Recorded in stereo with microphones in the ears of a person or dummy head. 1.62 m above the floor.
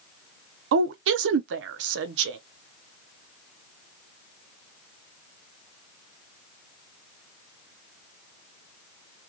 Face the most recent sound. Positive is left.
turn(degrees=-70)  # may be behind; listen again after turning